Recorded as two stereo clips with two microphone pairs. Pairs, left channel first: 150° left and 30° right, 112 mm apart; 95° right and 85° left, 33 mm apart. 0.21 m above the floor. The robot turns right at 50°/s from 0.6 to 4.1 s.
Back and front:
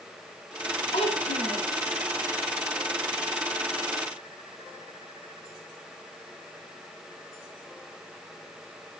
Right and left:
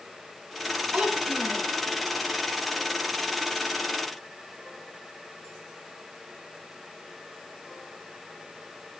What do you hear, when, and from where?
0.9 s a child speaking: 125° left, 5.5 m; by 1.6 s 160° left, 5.5 m